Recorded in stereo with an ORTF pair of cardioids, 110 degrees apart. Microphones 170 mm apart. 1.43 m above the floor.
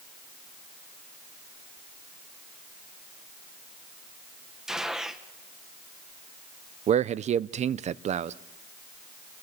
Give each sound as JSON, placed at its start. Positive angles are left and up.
{"t": 4.7, "sound": "a gunshot", "azimuth_deg": -5, "distance_m": 1.4}
{"t": 6.9, "sound": "a man speaking", "azimuth_deg": -45, "distance_m": 0.7}